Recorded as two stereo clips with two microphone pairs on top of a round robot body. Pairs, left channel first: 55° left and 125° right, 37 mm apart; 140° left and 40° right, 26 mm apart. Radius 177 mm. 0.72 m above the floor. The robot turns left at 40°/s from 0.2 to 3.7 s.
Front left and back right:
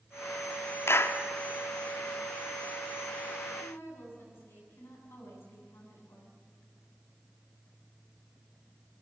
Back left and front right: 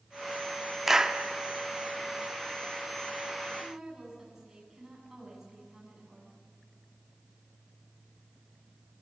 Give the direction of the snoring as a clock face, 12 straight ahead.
I don't hear snoring.